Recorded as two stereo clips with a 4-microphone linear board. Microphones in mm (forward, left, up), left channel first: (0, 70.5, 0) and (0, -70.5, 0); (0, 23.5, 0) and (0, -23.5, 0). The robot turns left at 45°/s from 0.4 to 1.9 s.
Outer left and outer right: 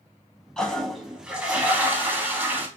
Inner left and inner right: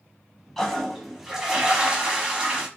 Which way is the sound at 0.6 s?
5° left (ahead or behind).